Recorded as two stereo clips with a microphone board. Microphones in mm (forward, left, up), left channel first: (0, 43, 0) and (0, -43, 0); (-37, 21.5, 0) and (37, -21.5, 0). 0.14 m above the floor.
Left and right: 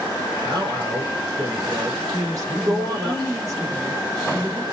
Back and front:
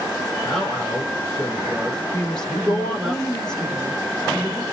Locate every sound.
0.5 s a man speaking: 125° right, 3.5 m
2.1 s a woman speaking: 130° right, 2.5 m